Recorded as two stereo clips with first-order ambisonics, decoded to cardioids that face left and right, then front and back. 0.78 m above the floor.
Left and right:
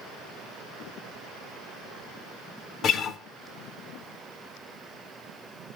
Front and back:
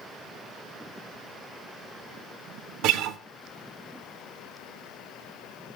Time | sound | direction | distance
2.8 | a guitar | 145° left | 0.9 m